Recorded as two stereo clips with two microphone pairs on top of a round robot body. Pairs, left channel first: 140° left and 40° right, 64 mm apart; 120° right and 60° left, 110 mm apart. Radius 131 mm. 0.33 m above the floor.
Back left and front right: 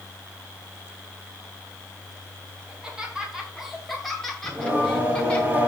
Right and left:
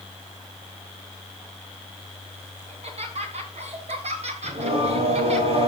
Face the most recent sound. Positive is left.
turn(degrees=30)